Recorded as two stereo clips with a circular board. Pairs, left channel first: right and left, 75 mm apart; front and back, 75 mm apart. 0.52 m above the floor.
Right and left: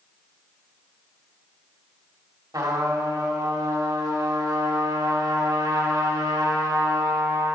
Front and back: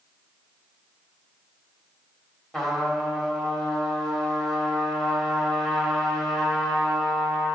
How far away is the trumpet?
About 2 m.